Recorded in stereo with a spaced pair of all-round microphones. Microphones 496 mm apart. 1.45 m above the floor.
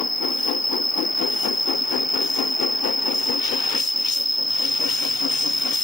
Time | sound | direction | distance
0.0 | an insect | 40° left (ahead or behind) | ?